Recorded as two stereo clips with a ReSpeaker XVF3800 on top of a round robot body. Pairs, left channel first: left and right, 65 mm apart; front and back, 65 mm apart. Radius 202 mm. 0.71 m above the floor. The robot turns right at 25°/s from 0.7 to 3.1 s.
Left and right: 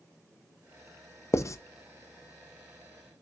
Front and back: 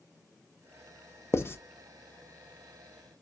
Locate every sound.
1.3 s writing: 45° left, 0.7 m; by 1.6 s 50° left, 0.7 m